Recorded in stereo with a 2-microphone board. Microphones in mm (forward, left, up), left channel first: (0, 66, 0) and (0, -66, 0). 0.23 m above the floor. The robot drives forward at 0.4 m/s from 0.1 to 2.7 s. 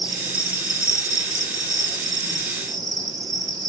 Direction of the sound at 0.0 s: 40° right (ahead or behind).